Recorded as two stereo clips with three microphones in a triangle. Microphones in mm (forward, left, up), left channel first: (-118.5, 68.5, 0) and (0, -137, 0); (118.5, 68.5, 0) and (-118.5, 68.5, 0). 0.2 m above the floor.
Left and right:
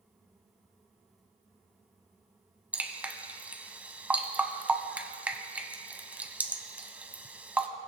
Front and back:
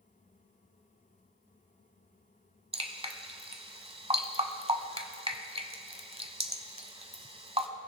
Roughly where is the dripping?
Behind right.